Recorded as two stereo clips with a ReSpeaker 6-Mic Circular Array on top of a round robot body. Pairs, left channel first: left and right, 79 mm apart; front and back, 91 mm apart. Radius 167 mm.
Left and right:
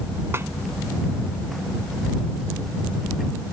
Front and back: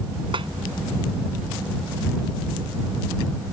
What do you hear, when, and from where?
0.3 s a snare drum: 150° right